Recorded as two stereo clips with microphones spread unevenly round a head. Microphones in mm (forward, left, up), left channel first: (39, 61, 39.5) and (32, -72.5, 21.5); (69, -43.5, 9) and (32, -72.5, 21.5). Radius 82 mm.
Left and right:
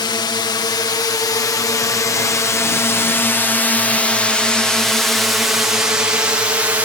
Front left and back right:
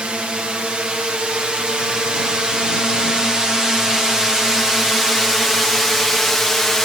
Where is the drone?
140° left; by 6.9 s 35° right.